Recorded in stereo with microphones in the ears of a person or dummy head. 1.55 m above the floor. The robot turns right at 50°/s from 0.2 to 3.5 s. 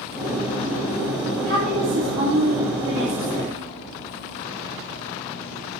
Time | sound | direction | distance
1.5 | a woman speaking | 140° right | 3 m